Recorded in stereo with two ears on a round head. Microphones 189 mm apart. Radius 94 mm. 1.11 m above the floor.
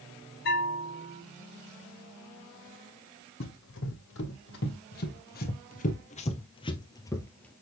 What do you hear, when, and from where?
0.5 s a bell: 50° left (ahead or behind), 2.5 m
3.4 s running footsteps: 65° left (ahead or behind), 3 m; by 7.5 s 5° left (ahead or behind), 1.5 m